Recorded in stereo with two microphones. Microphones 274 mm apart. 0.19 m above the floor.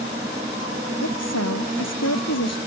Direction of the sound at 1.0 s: 75° left (ahead or behind).